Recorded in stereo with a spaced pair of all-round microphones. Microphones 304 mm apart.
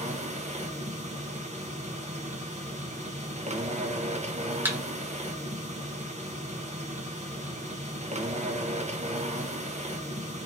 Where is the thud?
5° right (ahead or behind), 1.1 m.